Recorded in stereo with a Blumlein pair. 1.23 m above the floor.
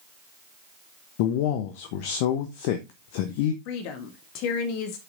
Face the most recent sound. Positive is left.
turn(degrees=45)